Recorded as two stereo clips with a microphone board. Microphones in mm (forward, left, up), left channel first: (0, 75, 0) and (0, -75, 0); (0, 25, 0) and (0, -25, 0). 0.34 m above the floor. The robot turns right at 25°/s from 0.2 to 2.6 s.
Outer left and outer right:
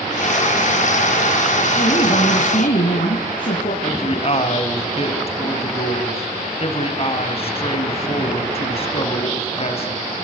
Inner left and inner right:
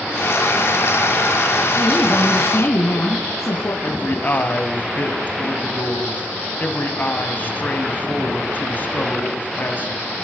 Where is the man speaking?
40° left (ahead or behind), 2.5 m.